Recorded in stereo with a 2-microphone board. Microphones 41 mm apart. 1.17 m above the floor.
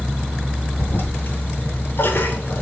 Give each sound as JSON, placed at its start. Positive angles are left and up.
{"t": 0.8, "sound": "a toilet flushing", "side_deg": 55, "distance_m": 2.5}